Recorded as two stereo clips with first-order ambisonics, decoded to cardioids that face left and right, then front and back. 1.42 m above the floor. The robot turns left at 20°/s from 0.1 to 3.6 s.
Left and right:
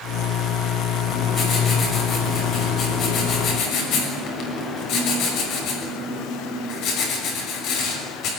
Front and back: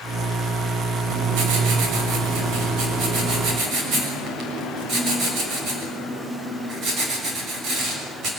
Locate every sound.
1.1 s writing: straight behind, 6 m; by 8.3 s 130° left, 6 m